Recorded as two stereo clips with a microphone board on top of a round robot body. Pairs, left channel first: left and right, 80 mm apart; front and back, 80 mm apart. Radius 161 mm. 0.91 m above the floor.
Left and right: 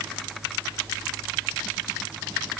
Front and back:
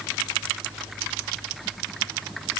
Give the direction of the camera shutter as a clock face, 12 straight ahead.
No camera shutter in this recording.